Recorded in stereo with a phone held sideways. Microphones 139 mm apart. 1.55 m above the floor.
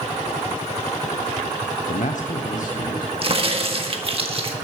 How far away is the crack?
About 1.5 m.